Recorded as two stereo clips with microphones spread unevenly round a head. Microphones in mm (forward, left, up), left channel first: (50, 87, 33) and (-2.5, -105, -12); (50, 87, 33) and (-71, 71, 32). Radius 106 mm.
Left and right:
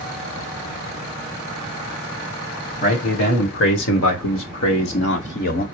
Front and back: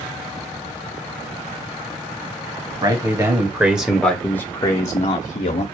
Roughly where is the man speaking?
Behind left.